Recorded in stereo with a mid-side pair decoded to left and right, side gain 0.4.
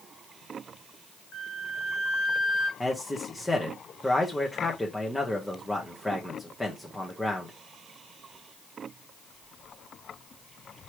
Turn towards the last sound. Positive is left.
turn(degrees=10)